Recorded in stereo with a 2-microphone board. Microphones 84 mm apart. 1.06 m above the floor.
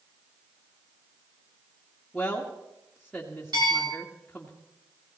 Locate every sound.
2.1 s a woman speaking: 5° left (ahead or behind), 1.8 m
3.5 s a bell: 60° right (ahead or behind), 9.5 m